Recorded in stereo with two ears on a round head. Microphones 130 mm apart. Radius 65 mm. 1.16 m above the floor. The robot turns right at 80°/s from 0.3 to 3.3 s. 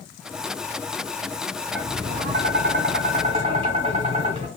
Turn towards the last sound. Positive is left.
turn(degrees=-40)